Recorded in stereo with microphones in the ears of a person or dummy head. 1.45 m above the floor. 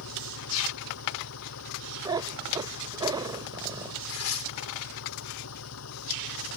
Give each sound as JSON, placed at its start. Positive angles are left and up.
{"t": 0.0, "sound": "an engine running", "side_deg": 85}
{"t": 2.0, "sound": "a cat meowing", "side_deg": -20}
{"t": 4.1, "sound": "tearing paper", "side_deg": 90}